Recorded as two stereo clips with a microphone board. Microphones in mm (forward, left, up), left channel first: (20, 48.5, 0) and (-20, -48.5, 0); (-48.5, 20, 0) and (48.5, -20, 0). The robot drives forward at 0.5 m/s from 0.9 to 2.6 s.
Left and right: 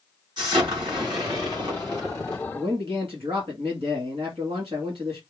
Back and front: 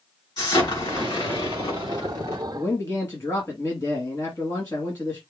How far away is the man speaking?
About 2.0 m.